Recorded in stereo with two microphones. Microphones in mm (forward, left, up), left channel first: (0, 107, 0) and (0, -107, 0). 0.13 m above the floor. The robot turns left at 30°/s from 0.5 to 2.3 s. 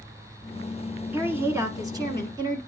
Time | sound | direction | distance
1.1 | a woman speaking | 10° right (ahead or behind) | 1.1 m